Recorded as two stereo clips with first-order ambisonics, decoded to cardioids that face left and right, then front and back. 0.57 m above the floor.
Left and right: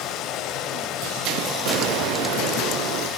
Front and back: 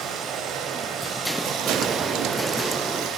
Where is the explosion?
105° right, 0.9 m.